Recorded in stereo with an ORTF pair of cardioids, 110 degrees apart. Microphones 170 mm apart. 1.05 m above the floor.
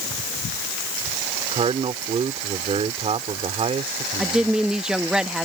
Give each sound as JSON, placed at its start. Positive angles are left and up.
{"t": 1.5, "sound": "a man speaking", "azimuth_deg": -40}
{"t": 4.2, "sound": "a woman speaking", "azimuth_deg": -5}